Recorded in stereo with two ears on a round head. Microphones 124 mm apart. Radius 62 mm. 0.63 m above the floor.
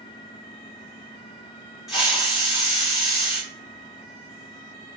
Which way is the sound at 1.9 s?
Centre (ahead or behind).